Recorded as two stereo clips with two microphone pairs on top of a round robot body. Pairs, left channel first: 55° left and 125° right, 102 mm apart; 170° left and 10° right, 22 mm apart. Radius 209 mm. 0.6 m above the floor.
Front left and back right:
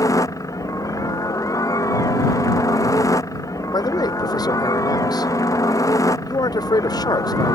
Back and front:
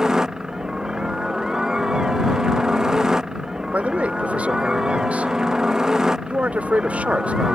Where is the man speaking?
Straight ahead.